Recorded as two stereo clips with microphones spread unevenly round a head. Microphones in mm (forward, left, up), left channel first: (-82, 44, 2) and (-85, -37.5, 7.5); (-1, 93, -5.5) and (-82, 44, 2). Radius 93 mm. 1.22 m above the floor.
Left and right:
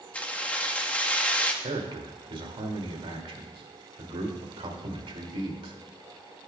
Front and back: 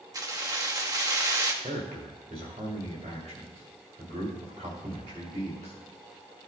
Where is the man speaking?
95° right, 2.5 m.